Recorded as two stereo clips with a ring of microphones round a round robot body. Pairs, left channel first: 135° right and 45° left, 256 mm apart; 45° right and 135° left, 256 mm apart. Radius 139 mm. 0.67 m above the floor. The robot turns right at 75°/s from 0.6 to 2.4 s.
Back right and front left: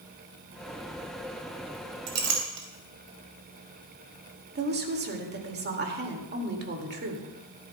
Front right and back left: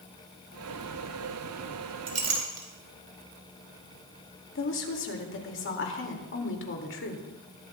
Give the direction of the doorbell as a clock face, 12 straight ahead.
No doorbell in this recording.